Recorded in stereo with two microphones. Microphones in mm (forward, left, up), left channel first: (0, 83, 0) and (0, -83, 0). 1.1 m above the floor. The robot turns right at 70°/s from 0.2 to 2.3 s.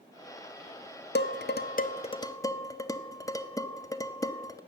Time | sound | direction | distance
1.1 | dishes clattering | 70° left (ahead or behind) | 0.5 m